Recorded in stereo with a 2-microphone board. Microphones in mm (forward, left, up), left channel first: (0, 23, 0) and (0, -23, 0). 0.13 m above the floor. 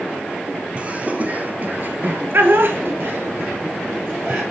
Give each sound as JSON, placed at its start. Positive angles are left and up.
{"t": 0.8, "sound": "laughter", "side_deg": -30, "distance_m": 2.5}